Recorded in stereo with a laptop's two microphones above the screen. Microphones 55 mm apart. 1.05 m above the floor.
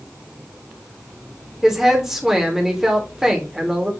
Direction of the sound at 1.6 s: 10° right (ahead or behind).